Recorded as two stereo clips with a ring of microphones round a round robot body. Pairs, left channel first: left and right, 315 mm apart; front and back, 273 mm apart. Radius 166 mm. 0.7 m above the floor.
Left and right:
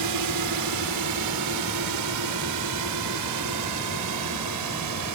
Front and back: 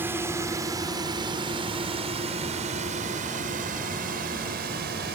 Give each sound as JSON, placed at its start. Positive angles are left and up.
{"t": 0.0, "sound": "a drone", "azimuth_deg": -100}